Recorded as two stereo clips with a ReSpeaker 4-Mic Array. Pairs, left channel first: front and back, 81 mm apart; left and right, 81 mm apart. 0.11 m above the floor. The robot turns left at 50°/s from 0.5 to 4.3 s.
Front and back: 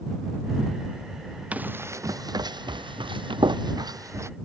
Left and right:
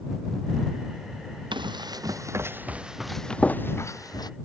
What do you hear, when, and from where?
1.5 s running footsteps: 105° right; by 4.3 s 125° left